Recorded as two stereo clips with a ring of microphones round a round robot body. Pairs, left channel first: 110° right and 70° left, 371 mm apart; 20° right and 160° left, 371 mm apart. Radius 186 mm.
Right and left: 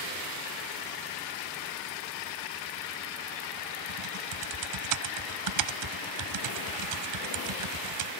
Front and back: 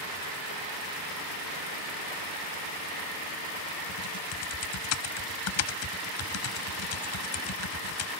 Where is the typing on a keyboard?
25° left.